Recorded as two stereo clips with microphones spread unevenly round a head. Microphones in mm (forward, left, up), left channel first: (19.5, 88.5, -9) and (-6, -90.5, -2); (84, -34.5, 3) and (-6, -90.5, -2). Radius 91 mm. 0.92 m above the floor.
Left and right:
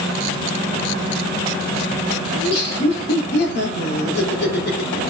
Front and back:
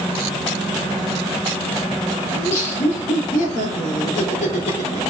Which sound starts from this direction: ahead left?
Laughter, at 2.4 s.